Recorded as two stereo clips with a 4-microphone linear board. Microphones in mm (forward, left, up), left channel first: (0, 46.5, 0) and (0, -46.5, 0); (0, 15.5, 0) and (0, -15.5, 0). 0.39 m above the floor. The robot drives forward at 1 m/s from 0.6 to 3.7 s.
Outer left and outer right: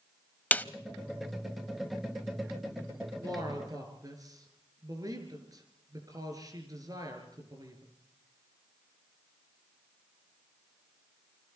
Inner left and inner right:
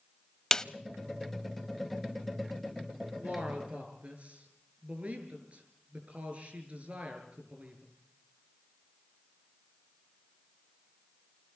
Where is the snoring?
I don't hear snoring.